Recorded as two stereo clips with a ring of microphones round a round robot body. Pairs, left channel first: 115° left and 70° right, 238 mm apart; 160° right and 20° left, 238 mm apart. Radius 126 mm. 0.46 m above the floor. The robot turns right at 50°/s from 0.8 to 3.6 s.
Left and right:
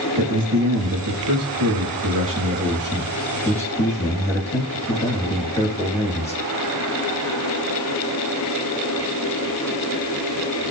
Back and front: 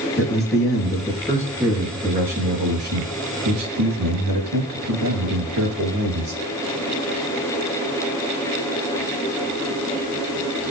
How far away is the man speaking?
About 9 m.